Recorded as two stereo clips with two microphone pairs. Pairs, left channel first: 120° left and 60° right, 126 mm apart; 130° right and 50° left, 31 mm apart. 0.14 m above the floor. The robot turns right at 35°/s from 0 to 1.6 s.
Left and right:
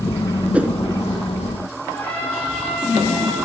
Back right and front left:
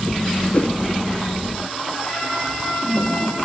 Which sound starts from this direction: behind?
A trumpet, at 1.9 s.